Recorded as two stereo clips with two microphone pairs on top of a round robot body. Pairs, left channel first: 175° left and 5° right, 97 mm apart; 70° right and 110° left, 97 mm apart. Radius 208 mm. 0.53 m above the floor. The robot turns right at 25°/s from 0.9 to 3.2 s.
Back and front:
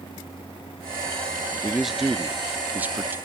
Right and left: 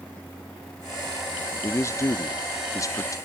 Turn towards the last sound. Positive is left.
turn(degrees=-65)